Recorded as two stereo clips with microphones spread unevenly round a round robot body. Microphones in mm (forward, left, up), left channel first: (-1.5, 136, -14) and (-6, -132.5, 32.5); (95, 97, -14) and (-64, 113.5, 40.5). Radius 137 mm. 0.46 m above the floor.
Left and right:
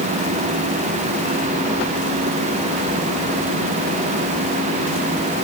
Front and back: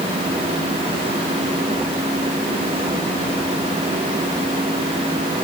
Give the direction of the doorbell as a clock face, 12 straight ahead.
No doorbell in this recording.